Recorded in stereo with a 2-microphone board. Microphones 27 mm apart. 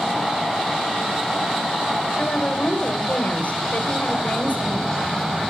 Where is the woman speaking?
70° left (ahead or behind), 4.5 m.